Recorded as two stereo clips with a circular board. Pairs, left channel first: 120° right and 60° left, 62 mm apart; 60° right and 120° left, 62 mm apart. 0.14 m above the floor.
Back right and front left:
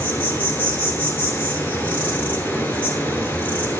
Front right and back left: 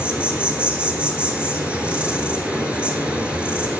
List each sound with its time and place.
0.0 s an insect: 170° right, 1.4 m